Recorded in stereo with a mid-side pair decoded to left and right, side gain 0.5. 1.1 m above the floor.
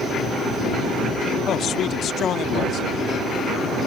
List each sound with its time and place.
1.5 s a man speaking: 60° left